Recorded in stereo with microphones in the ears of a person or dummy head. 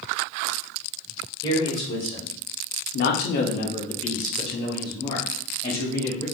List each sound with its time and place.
1.4 s a man speaking: 20° left (ahead or behind), 1.3 m; by 6.2 s 25° left (ahead or behind), 2.5 m